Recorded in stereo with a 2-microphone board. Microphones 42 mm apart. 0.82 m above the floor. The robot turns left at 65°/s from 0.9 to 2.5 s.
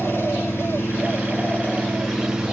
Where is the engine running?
85° left, 5.5 m; by 2.5 s 15° right, 5.5 m.